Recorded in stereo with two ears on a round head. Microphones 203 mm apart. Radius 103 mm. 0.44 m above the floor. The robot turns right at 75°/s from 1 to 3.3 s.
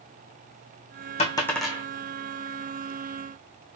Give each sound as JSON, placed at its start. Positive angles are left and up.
{"t": 1.2, "sound": "a dropped coin", "side_deg": 30, "distance_m": 1.3}